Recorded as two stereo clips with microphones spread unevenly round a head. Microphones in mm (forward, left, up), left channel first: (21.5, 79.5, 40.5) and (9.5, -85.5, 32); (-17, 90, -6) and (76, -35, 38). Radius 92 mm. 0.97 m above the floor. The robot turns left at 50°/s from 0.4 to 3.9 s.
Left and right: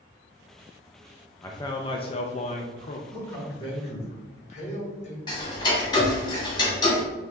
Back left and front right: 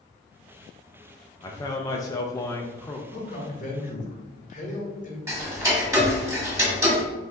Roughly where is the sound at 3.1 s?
Behind.